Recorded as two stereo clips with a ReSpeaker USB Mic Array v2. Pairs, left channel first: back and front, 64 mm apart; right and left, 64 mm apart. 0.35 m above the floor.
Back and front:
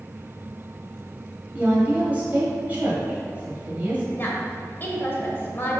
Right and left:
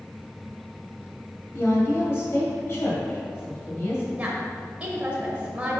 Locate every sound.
1.5 s a woman speaking: 55° right, 1.9 m
4.2 s a woman speaking: 150° left, 1.3 m